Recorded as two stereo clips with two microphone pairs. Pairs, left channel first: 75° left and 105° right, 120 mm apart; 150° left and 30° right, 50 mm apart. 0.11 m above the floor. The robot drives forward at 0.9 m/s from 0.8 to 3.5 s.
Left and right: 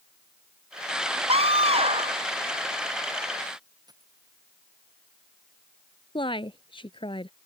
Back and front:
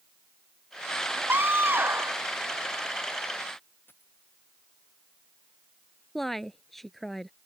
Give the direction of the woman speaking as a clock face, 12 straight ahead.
10 o'clock.